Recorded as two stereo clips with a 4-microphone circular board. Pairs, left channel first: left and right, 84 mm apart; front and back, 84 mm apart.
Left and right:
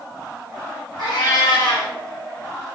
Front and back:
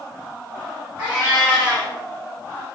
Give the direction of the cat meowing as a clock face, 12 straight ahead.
8 o'clock.